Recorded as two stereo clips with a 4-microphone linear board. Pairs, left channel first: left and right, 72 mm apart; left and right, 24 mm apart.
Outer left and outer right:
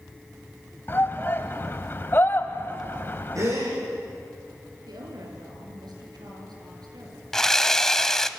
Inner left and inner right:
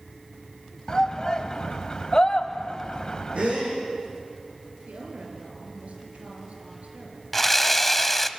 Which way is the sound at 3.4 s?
50° right (ahead or behind).